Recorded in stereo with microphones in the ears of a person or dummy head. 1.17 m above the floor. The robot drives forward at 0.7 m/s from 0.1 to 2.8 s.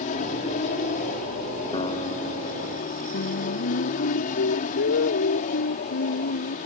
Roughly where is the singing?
Left.